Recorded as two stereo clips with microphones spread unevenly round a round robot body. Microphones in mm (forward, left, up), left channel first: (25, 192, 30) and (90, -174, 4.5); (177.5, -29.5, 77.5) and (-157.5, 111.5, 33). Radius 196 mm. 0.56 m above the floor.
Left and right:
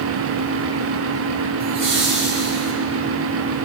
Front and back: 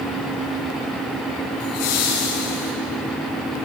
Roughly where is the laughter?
Ahead.